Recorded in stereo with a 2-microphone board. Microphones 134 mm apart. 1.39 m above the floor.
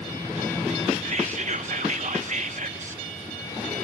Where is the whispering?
60° right (ahead or behind), 1.1 m.